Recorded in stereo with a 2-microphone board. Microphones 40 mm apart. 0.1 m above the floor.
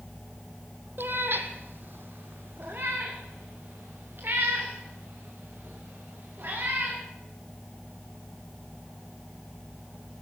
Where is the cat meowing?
60° right (ahead or behind), 1.1 m; by 7.0 s 50° right (ahead or behind), 5.5 m.